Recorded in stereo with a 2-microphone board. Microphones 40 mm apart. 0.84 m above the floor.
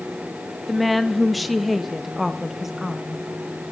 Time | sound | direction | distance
0.7 | a woman speaking | centre (ahead or behind) | 1.1 m